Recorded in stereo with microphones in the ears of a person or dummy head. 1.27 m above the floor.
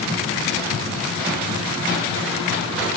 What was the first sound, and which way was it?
Only background noise.